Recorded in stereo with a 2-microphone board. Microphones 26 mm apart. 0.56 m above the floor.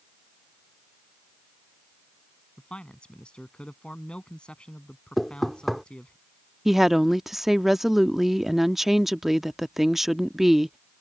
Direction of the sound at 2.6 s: 40° left (ahead or behind).